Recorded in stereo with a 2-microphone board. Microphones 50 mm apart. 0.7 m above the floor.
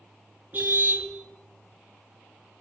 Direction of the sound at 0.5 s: 35° right (ahead or behind).